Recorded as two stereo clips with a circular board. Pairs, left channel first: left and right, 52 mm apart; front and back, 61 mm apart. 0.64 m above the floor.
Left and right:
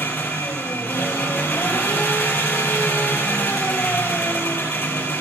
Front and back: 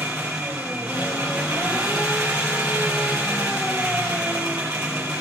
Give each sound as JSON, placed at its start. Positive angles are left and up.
{"t": 0.0, "sound": "an engine running", "azimuth_deg": 140, "distance_m": 3.0}